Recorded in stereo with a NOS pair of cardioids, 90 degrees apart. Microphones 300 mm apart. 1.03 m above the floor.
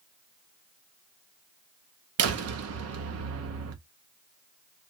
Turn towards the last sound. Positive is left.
turn(degrees=-55)